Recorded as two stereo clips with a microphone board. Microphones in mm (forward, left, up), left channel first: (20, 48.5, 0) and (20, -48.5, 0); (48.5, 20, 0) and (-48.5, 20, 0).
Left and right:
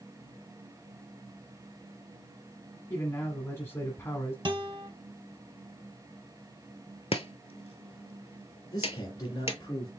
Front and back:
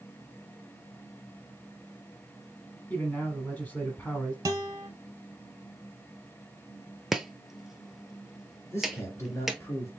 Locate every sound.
2.9 s a man speaking: 55° left, 1.3 m
4.5 s a guitar: 130° right, 0.8 m
7.1 s chopping: 95° left, 0.6 m
8.7 s a man speaking: 50° left, 2 m